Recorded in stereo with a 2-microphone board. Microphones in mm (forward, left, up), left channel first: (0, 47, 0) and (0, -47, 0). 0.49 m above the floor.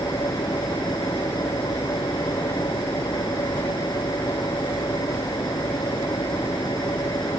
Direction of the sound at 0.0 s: 50° left (ahead or behind).